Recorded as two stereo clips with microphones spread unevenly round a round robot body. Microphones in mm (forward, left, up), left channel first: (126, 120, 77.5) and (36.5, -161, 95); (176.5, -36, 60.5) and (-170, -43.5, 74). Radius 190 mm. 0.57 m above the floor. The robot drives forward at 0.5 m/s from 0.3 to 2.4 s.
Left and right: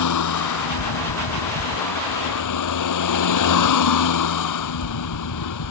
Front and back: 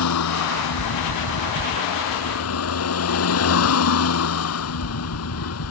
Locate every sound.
0.0 s a vehicle: 50° left; by 5.7 s 55° left